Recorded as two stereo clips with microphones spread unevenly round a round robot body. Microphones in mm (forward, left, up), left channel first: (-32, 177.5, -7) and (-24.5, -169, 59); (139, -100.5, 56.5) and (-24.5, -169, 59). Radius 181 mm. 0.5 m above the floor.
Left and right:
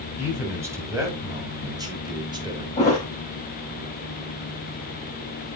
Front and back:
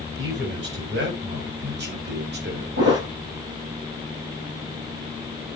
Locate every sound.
0.2 s a man speaking: 175° right, 4.5 m; by 2.7 s 170° right, 2.5 m
2.8 s a thud: 165° left, 6.5 m